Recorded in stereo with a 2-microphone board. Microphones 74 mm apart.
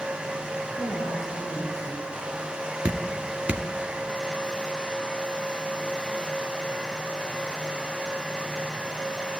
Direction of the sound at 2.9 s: 20° right (ahead or behind).